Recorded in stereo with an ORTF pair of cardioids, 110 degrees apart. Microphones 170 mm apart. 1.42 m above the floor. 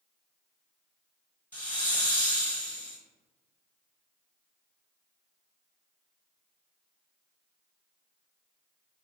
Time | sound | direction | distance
1.5 | a hiss | 10° left | 1.1 m